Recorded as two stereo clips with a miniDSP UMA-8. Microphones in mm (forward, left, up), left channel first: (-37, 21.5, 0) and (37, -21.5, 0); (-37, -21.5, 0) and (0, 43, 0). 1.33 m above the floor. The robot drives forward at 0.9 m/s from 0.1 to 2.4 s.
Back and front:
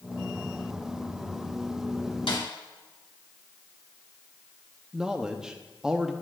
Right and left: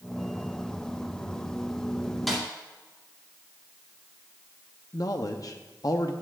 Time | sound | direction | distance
2.3 | a snare drum | 150° left | 2.5 m
4.9 | a man speaking | 110° right | 0.7 m